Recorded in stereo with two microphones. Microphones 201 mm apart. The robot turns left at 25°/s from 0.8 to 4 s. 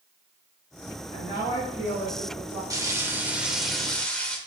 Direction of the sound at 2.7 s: 155° right.